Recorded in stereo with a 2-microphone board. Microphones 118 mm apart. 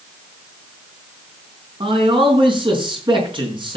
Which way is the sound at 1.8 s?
45° right (ahead or behind).